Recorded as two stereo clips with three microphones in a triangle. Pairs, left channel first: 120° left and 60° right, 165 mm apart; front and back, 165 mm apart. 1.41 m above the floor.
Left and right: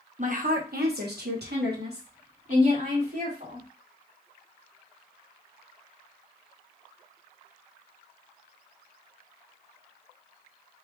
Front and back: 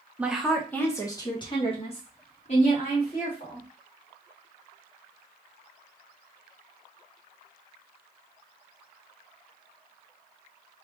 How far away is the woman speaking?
About 1.1 m.